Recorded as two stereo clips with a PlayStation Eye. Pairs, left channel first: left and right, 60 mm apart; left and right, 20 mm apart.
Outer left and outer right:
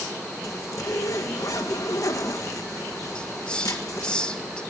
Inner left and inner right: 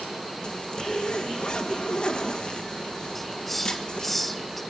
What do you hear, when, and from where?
0.4 s a zipper: 65° left (ahead or behind), 1.7 m
3.1 s a hiss: 15° left (ahead or behind), 1.4 m